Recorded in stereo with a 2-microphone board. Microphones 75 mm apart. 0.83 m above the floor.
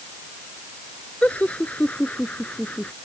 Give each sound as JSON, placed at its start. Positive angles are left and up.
{"t": 1.2, "sound": "laughter", "side_deg": 20}